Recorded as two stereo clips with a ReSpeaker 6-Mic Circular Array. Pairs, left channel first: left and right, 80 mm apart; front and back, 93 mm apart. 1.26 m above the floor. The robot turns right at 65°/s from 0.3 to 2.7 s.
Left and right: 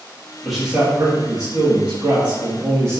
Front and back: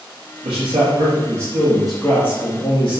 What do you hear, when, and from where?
0.4 s a man speaking: 175° left, 2.0 m; by 3.0 s 40° right, 2.0 m